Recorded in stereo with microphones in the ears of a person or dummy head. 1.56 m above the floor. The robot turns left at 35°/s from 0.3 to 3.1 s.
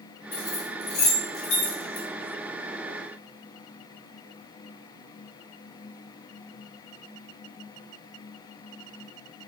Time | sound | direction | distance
0.3 | keys jangling | 20° left (ahead or behind) | 1.2 m